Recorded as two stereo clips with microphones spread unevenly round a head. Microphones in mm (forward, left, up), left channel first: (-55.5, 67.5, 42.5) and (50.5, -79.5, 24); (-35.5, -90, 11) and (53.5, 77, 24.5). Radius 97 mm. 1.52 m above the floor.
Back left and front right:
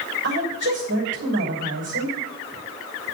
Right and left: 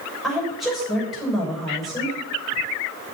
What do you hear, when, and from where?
0.2 s a woman speaking: 25° right, 6.5 m